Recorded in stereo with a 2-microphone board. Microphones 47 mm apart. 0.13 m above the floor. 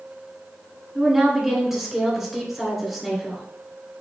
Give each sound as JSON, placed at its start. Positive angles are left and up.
{"t": 0.9, "sound": "a woman speaking", "side_deg": -5, "distance_m": 1.6}